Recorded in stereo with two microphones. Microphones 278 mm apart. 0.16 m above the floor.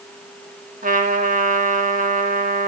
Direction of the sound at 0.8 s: 30° right (ahead or behind).